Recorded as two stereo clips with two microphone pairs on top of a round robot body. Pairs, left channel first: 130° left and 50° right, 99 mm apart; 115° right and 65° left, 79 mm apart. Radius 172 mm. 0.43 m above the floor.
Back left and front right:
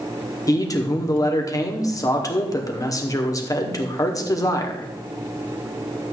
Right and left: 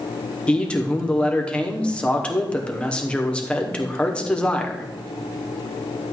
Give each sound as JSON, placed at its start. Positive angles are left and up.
{"t": 0.5, "sound": "a man speaking", "azimuth_deg": 175, "distance_m": 1.8}